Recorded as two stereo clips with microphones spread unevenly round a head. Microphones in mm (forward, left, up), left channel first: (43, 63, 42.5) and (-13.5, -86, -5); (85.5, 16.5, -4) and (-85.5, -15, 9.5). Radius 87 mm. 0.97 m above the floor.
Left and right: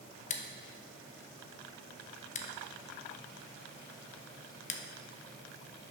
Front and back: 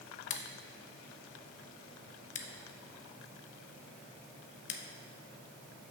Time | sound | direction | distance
0.3 | scissors | 25° left | 0.7 m